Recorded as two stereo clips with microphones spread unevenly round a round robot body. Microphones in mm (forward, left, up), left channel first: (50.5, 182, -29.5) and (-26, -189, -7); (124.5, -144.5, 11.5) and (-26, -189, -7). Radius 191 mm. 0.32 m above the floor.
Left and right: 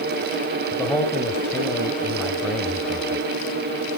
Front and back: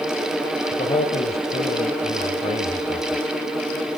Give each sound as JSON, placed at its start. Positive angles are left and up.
{"t": 0.7, "sound": "a man speaking", "azimuth_deg": -5, "distance_m": 1.8}